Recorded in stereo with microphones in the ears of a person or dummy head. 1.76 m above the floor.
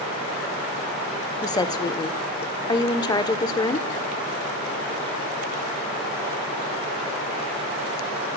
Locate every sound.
1.4 s a woman speaking: 25° left (ahead or behind), 0.8 m